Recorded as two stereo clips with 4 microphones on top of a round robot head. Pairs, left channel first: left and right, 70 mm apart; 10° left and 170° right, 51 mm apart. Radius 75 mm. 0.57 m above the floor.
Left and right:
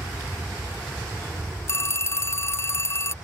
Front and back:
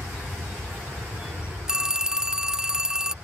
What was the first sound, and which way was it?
An aircraft, 175° right.